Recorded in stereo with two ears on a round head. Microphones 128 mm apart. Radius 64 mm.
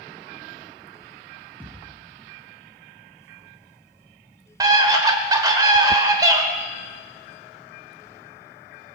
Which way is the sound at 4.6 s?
25° right (ahead or behind).